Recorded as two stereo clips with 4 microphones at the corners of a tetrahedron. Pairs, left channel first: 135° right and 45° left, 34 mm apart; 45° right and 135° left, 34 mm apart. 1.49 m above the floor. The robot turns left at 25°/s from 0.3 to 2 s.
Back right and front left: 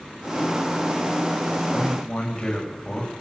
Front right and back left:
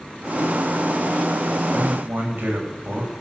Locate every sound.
1.7 s a man speaking: 165° left, 7.5 m; by 3.1 s 160° left, 7.5 m